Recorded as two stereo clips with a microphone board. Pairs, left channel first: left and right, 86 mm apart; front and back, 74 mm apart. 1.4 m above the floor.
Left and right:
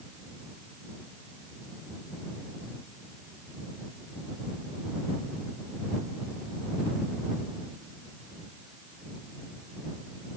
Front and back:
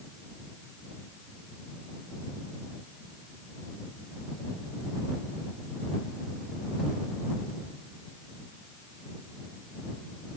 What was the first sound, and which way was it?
Only background noise.